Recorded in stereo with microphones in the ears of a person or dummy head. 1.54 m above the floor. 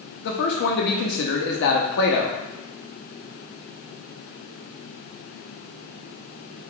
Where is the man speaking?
55° left (ahead or behind), 0.7 m.